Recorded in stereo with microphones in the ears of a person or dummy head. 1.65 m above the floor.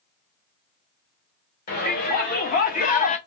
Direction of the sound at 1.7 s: 45° left (ahead or behind).